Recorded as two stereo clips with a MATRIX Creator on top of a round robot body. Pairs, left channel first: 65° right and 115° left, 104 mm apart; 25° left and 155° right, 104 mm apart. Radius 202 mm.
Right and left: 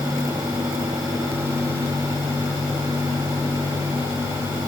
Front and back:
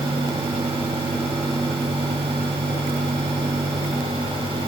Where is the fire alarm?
I don't hear a fire alarm.